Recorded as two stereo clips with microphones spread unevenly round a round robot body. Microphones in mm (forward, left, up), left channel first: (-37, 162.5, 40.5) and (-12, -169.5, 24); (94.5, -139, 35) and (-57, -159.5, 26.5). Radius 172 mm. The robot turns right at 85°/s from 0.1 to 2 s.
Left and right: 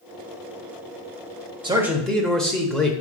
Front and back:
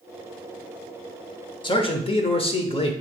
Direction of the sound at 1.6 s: 25° right.